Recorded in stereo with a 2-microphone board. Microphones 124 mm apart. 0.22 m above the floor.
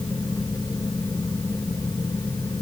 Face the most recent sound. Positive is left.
No sound to turn to.